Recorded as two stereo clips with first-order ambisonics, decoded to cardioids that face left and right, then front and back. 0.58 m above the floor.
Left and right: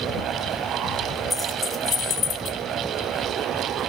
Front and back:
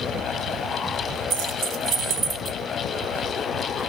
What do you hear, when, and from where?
1.3 s keys jangling: straight behind, 0.8 m; by 2.6 s 110° left, 1.0 m